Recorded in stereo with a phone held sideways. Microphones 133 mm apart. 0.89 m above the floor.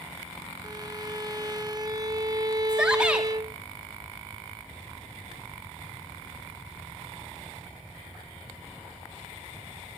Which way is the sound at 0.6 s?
30° right (ahead or behind).